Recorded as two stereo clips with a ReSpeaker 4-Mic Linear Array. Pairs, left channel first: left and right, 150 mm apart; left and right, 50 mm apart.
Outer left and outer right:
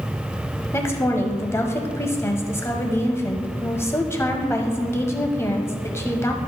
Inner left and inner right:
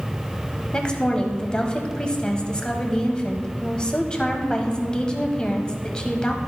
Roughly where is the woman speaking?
Centre.